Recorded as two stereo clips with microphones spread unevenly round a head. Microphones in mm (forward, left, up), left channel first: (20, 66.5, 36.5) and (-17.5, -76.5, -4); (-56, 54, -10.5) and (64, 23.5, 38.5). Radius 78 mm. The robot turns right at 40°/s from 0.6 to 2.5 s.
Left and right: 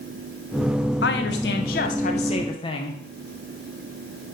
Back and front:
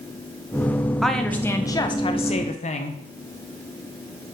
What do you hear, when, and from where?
1.0 s a woman speaking: 70° left, 1.1 m; by 3.0 s 130° left, 1.1 m